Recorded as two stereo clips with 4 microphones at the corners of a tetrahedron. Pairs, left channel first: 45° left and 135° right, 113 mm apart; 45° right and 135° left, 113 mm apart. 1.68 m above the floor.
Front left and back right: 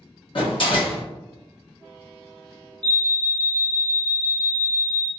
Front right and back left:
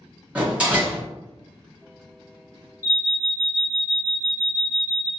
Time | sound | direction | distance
0.3 | a door slam | 60° left | 1.1 m
2.8 | an alarm | 160° right | 0.8 m